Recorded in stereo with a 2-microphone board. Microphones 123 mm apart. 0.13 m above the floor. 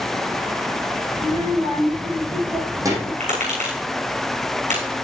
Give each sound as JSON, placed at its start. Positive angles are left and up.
{"t": 1.2, "sound": "a child speaking", "side_deg": -50, "distance_m": 5.0}
{"t": 3.2, "sound": "tapping", "side_deg": -75, "distance_m": 6.0}